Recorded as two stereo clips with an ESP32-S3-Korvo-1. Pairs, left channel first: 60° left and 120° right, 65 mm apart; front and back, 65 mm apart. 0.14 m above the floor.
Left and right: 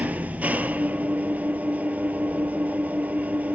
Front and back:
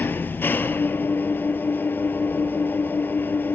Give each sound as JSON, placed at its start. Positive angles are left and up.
{"t": 0.0, "sound": "an engine running", "azimuth_deg": -55, "distance_m": 1.0}